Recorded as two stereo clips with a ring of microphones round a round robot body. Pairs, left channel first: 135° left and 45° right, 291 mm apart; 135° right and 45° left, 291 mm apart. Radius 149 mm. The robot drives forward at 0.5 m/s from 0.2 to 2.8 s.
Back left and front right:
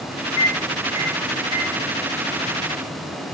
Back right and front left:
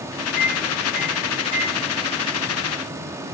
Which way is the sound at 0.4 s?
160° left.